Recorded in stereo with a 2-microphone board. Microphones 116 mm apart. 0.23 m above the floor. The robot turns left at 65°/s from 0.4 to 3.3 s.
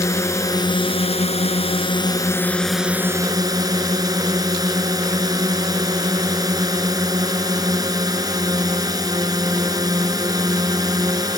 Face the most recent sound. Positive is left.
turn(degrees=-40)